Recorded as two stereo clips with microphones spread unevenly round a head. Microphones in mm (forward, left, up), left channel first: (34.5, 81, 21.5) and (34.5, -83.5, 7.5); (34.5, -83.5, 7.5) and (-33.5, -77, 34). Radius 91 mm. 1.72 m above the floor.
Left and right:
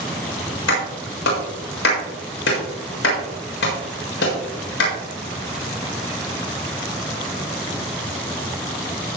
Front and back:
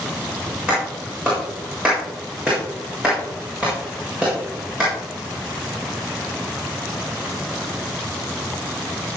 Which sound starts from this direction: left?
A clap, at 0.7 s.